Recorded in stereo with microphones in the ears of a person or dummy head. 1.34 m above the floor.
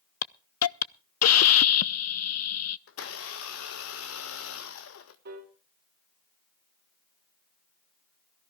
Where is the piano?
55° right (ahead or behind), 2.5 m.